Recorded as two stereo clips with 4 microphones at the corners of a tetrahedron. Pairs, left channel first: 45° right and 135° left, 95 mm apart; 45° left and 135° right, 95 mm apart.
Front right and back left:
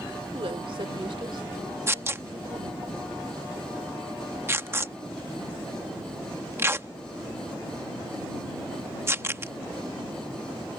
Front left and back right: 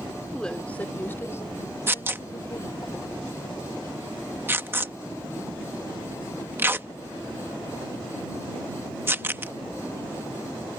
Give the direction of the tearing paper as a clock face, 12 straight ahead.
6 o'clock.